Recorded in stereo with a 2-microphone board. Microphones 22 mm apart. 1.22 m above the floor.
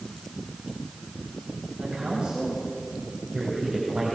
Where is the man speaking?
45° right (ahead or behind), 8 m; by 4.2 s 35° right (ahead or behind), 7 m.